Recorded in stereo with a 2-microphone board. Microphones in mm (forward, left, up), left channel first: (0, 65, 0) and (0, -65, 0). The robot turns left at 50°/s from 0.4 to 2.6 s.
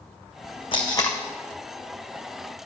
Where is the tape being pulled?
45° left (ahead or behind), 1.5 m; by 1.2 s 20° left (ahead or behind), 1.5 m.